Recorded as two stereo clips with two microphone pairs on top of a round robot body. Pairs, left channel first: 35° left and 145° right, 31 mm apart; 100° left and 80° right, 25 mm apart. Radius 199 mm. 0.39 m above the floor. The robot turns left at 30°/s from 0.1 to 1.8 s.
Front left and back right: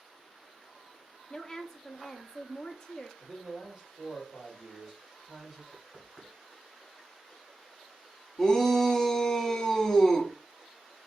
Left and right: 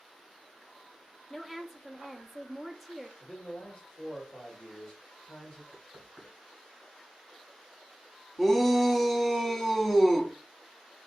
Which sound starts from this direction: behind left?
A man speaking, at 3.2 s.